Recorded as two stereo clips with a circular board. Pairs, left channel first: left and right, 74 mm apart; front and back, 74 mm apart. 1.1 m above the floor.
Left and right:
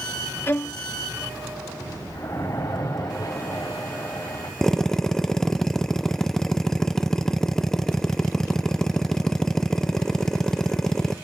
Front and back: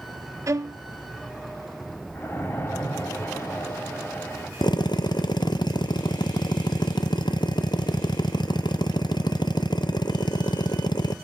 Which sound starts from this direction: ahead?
A drill, at 4.6 s.